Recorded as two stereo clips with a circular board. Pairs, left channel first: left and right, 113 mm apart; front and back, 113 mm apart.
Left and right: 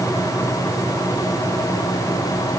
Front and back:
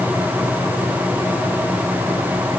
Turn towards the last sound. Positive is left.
No sound to turn to.